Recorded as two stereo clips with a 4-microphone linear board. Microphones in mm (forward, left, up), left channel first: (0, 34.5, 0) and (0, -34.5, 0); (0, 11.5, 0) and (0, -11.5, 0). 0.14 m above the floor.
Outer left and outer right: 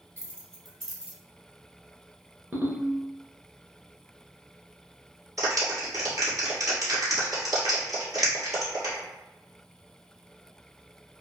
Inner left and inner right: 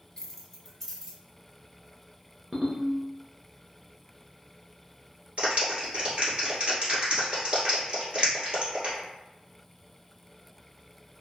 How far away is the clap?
About 1.9 m.